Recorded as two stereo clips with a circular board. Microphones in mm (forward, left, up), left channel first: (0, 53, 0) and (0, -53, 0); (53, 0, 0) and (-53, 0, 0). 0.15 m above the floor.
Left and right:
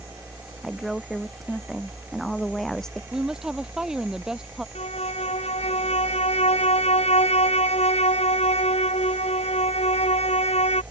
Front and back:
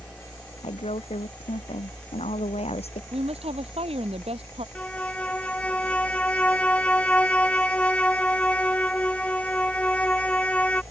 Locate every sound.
0.6 s a woman speaking: straight ahead; by 3.0 s 5° left
3.1 s a woman speaking: 175° right
4.8 s a violin: 80° left